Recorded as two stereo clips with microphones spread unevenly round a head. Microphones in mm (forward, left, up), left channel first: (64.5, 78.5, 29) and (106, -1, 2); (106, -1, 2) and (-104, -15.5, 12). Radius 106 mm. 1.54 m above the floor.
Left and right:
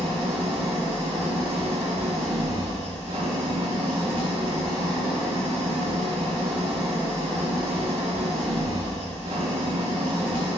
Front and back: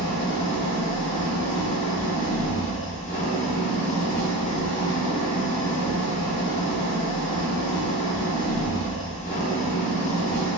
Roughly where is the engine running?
Ahead right.